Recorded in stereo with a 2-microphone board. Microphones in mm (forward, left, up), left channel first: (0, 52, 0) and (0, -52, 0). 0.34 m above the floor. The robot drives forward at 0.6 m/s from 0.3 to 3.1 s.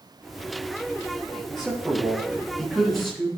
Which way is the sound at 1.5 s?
Centre (ahead or behind).